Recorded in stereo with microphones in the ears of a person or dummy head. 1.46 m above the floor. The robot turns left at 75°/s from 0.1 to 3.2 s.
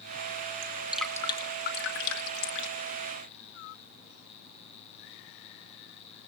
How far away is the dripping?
About 2 m.